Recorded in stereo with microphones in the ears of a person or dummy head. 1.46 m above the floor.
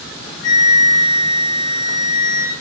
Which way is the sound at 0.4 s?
50° left (ahead or behind).